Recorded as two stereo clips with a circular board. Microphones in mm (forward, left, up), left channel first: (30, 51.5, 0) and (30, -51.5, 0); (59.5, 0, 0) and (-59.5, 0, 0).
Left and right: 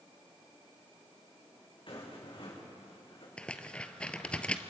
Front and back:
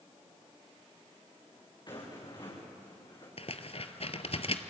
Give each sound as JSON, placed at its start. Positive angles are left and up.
{"t": 1.9, "sound": "a rattle", "azimuth_deg": 50, "distance_m": 5.0}
{"t": 3.4, "sound": "tearing paper", "azimuth_deg": 10, "distance_m": 1.0}